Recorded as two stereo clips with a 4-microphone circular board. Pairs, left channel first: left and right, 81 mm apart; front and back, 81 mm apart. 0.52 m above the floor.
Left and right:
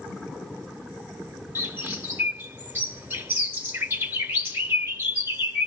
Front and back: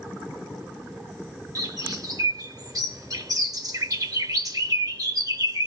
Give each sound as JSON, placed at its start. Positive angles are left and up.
{"t": 1.6, "sound": "a bird", "azimuth_deg": -150, "distance_m": 2.0}